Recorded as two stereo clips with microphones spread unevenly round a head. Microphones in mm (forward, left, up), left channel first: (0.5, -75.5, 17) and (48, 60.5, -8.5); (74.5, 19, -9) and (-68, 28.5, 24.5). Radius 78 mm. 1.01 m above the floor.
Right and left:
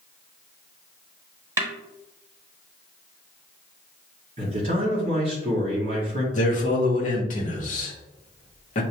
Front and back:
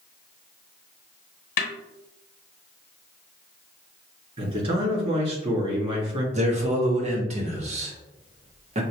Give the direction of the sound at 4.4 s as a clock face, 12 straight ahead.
8 o'clock.